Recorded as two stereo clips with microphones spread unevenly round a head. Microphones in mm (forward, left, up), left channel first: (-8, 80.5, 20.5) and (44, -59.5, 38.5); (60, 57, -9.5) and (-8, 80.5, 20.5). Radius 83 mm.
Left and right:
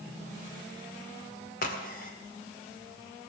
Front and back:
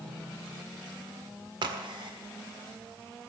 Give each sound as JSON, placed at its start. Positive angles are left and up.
{"t": 1.6, "sound": "a crack", "azimuth_deg": 150, "distance_m": 1.7}